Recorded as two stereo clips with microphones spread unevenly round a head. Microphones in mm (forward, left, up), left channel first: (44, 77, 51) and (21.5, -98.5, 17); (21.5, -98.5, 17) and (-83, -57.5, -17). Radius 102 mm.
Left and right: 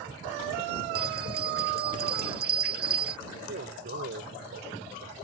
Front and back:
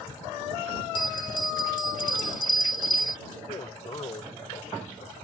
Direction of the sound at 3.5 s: 60° right.